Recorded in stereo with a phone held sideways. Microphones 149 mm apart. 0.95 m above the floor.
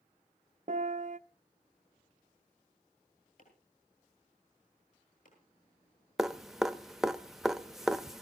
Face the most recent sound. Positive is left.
turn(degrees=-5)  # may be behind; listen again after turning